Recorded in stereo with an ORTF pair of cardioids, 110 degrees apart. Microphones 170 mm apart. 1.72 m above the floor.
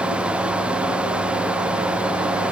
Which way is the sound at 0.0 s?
5° right.